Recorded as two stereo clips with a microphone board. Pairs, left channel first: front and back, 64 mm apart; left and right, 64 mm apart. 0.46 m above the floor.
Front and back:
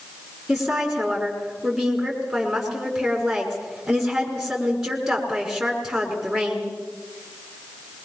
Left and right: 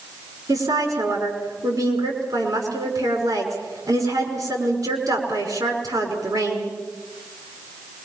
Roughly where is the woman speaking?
Right.